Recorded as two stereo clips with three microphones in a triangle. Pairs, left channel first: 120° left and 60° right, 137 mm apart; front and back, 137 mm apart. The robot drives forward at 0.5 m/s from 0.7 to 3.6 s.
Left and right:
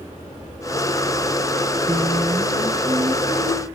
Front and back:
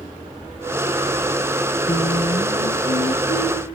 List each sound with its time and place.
1.9 s singing: straight ahead, 7 m